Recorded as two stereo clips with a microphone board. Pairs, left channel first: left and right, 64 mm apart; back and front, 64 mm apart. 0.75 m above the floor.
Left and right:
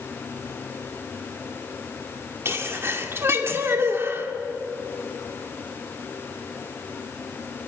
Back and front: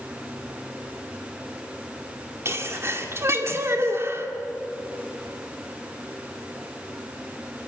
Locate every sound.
2.5 s a sneeze: 40° right, 2 m